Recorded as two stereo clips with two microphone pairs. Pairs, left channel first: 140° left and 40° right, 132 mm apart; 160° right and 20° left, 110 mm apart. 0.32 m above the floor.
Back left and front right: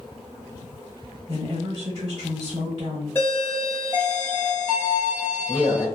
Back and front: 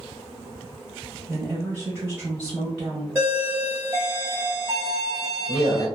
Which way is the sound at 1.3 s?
50° right.